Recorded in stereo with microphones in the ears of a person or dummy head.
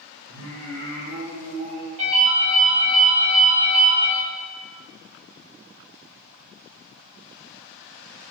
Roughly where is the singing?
Right.